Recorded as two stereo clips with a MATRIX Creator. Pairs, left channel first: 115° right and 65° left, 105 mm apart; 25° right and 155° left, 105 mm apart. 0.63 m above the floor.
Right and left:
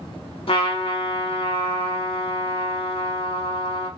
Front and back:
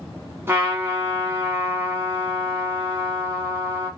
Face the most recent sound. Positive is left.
turn(degrees=-135)